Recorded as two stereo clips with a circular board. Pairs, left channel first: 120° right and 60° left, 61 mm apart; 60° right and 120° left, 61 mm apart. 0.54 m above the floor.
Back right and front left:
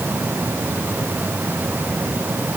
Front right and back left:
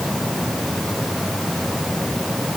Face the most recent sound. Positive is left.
No sound to turn to.